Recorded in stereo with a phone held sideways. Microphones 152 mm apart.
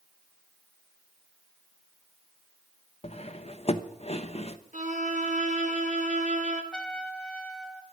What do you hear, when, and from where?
3.0 s cutlery clinking: 45° left (ahead or behind), 0.9 m
4.7 s a violin: 55° right (ahead or behind), 2 m
6.7 s a trumpet: 5° left (ahead or behind), 1.2 m